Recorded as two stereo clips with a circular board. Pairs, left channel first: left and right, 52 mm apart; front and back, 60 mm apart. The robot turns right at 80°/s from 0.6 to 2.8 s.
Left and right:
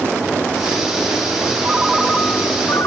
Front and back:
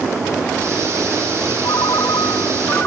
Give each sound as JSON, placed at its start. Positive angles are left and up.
{"t": 1.6, "sound": "a ringtone", "azimuth_deg": -30}